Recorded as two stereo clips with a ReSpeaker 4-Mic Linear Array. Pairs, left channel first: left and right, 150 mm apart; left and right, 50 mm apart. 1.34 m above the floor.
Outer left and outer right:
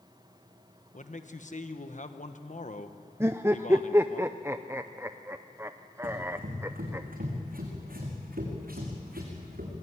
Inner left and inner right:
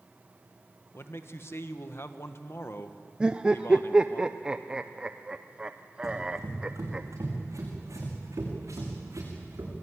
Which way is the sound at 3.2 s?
15° right (ahead or behind).